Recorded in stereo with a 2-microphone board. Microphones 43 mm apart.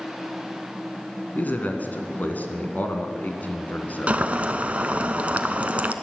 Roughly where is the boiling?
Right.